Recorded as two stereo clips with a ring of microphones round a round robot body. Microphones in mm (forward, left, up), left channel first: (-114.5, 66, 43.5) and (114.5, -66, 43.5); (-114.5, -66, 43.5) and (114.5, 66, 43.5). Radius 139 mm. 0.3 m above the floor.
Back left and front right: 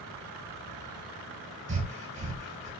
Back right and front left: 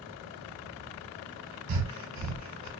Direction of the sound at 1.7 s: 35° left.